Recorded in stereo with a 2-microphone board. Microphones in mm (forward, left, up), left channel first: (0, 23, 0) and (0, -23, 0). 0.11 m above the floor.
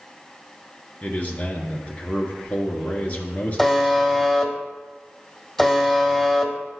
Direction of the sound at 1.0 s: 35° left (ahead or behind).